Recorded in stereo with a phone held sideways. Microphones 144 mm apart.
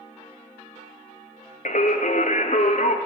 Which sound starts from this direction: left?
Singing, at 1.6 s.